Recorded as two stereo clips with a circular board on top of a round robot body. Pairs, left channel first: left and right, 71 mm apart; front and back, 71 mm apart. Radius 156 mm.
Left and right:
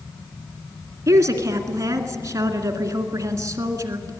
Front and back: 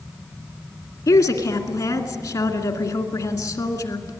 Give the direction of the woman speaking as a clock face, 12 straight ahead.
1 o'clock.